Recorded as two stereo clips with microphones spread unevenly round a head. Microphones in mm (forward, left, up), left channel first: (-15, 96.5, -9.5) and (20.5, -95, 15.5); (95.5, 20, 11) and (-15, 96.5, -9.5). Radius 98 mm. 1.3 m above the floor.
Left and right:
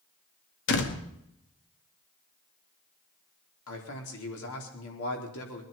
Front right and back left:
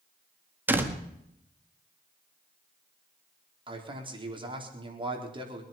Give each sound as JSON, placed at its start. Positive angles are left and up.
{"t": 0.7, "sound": "a door slam", "azimuth_deg": 70, "distance_m": 1.9}
{"t": 3.7, "sound": "a man speaking", "azimuth_deg": 95, "distance_m": 4.0}